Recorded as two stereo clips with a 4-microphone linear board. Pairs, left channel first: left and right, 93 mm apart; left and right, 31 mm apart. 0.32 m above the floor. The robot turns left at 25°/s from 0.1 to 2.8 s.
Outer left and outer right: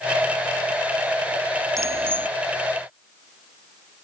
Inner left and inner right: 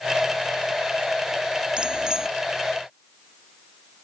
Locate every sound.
1.8 s a bicycle bell: 30° right (ahead or behind); by 2.3 s 20° right (ahead or behind)